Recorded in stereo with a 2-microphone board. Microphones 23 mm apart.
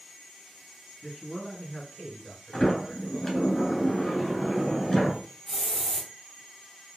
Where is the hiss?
20° left (ahead or behind), 1.6 m.